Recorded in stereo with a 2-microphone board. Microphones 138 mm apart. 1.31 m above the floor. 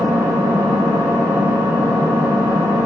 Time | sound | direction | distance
0.0 | an engine running | 20° right (ahead or behind) | 1.2 m